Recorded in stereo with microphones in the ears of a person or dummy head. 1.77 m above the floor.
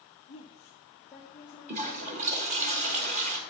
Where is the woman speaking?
30° left (ahead or behind), 1.0 m; by 2.7 s 15° right (ahead or behind), 3.5 m.